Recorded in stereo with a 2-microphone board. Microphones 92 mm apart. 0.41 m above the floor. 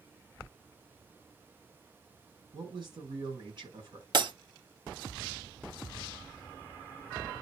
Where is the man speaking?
55° right (ahead or behind), 6 m.